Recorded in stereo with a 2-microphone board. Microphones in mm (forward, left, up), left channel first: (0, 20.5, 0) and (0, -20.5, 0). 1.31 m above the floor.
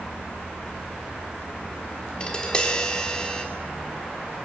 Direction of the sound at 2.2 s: 25° left (ahead or behind).